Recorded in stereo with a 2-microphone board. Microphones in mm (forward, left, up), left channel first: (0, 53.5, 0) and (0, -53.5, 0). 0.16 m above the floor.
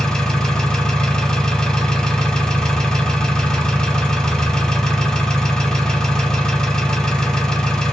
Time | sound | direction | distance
0.0 | an engine running | 5° left (ahead or behind) | 1.2 m